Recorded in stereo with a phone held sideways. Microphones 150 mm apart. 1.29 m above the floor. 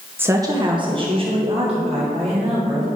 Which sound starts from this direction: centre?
A woman speaking, at 0.2 s.